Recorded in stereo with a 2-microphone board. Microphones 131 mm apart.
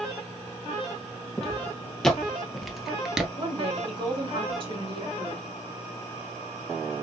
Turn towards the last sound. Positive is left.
turn(degrees=-40)  # may be behind; listen again after turning